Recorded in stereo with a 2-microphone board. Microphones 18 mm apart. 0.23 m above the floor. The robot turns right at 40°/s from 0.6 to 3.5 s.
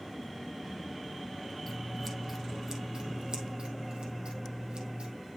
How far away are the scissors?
About 1.8 m.